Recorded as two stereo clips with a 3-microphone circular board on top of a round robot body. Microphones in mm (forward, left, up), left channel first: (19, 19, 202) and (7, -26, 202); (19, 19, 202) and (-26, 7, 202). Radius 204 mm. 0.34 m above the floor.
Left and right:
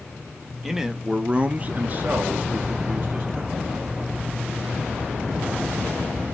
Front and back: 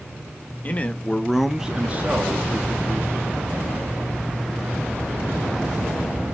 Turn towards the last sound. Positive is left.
turn(degrees=-160)